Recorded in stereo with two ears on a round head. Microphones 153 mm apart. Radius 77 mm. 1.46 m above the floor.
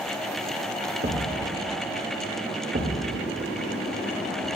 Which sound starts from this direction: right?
A thud, at 1.0 s.